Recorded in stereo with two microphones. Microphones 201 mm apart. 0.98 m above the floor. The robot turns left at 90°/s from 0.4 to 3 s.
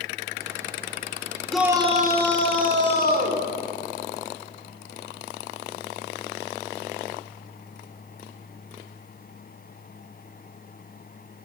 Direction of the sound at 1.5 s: 5° left.